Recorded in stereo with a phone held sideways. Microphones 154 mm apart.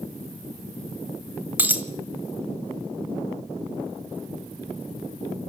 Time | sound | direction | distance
1.6 | a dropped coin | 10° right (ahead or behind) | 1.6 m